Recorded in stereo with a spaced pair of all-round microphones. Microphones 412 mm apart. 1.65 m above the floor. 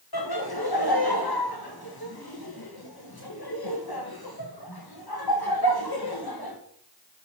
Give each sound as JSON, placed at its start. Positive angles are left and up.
{"t": 0.1, "sound": "laughter", "side_deg": 60, "distance_m": 1.6}